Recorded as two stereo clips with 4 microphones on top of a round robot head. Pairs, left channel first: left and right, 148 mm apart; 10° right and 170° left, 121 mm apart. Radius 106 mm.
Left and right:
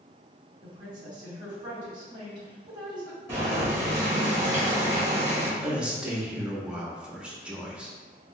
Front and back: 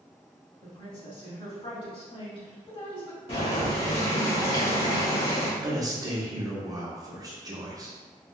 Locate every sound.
0.6 s a woman speaking: 35° right, 1.7 m
3.3 s boiling: 25° right, 1.7 m
5.6 s a man speaking: 170° right, 0.9 m